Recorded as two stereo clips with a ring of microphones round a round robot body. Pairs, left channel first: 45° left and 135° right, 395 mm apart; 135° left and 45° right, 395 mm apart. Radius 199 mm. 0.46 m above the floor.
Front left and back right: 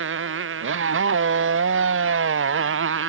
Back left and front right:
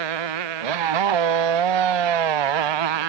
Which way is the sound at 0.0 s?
75° right.